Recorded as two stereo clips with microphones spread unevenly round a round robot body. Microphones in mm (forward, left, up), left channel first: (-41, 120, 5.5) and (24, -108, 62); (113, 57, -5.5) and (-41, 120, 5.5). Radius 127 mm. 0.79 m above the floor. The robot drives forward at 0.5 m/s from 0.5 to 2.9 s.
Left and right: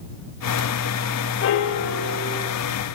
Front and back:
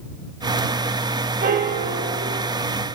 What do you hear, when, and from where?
1.4 s a piano: 120° left, 0.7 m; by 2.5 s 145° left, 1.1 m